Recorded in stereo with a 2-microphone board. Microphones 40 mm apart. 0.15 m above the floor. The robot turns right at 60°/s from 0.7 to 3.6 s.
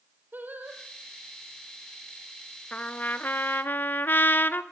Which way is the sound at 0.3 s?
50° right (ahead or behind).